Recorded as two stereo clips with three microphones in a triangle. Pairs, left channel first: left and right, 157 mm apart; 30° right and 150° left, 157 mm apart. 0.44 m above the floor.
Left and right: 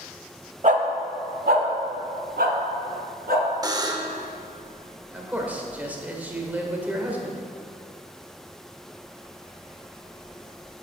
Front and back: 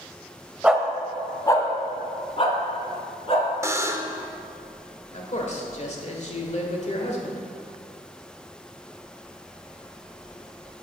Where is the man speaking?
15° right, 1.3 m.